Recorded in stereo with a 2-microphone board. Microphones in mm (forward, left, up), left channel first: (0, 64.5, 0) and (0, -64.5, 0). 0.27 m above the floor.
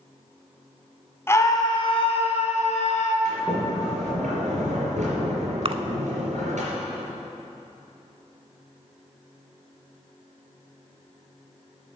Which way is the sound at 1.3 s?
20° left (ahead or behind).